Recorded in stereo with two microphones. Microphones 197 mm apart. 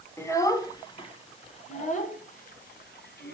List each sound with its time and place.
0.2 s a child speaking: 15° left (ahead or behind), 1.9 m; by 3.4 s 60° left (ahead or behind), 2 m